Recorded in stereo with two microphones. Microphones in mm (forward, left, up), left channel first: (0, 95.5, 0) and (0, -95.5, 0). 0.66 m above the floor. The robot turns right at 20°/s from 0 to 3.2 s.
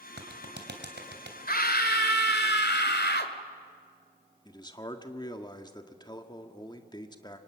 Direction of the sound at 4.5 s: 25° left (ahead or behind).